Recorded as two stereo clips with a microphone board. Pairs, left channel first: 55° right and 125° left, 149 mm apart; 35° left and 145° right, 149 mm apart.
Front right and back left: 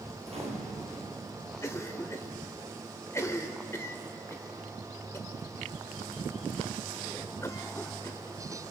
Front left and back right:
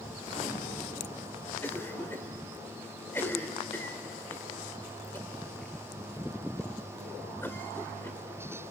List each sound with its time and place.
0.2 s a gunshot: 80° left, 6 m
1.6 s a cough: 15° right, 1.4 m